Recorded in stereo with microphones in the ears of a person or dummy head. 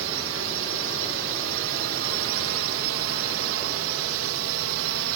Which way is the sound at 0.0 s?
65° right (ahead or behind).